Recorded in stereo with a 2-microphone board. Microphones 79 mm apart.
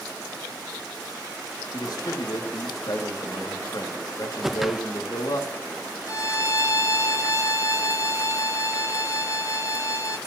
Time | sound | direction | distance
1.7 | a man speaking | 60° left (ahead or behind) | 2 m
4.4 | a whoosh | 5° right (ahead or behind) | 0.7 m
6.1 | a violin | 40° left (ahead or behind) | 0.9 m